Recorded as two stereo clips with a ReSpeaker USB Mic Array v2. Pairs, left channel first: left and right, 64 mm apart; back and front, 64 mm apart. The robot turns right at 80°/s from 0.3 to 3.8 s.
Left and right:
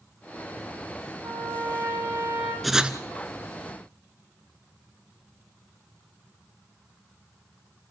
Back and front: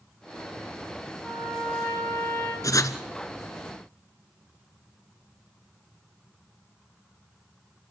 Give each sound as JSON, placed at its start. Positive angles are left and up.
{"t": 1.2, "sound": "a trumpet", "azimuth_deg": -105, "distance_m": 6.5}
{"t": 2.6, "sound": "writing", "azimuth_deg": 180, "distance_m": 1.1}